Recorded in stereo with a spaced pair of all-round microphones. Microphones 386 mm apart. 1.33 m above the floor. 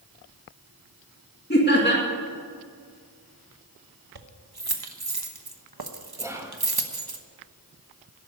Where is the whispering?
5° right (ahead or behind), 1.9 m.